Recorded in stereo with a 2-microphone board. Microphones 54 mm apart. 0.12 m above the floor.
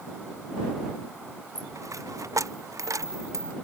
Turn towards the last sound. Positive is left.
turn(degrees=-80)